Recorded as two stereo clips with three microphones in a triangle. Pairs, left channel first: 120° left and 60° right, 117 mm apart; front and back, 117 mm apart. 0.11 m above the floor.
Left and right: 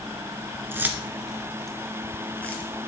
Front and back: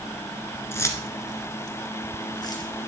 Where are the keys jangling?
25° right, 0.8 m; by 2.7 s 50° left, 1.5 m.